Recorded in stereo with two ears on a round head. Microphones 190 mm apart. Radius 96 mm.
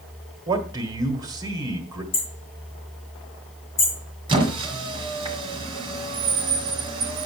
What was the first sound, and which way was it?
A man speaking, 20° right (ahead or behind).